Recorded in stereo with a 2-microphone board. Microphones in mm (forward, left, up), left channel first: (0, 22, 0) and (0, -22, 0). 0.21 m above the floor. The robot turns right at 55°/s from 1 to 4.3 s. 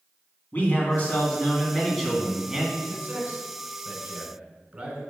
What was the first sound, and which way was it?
A man speaking, 115° left.